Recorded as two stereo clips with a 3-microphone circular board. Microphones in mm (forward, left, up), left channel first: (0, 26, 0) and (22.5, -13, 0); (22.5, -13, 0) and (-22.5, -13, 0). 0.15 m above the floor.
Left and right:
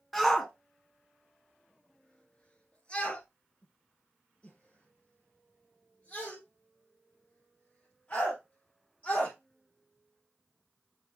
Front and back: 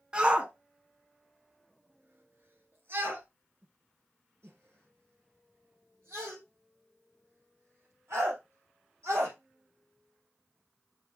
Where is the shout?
160° right, 1.2 m; by 9.3 s straight behind, 5.5 m.